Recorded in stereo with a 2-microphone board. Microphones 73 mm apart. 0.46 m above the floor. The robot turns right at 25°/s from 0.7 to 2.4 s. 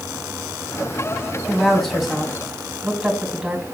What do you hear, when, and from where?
1.5 s a woman speaking: 15° left (ahead or behind), 2.5 m; by 3.6 s 5° right (ahead or behind), 2.5 m